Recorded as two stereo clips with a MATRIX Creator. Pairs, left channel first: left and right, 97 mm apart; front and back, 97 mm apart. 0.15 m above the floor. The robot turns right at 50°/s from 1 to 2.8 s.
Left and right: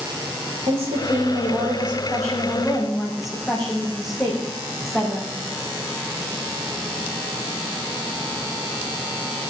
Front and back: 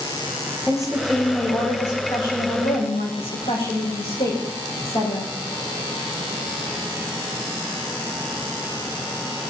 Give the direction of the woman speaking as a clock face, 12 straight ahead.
3 o'clock.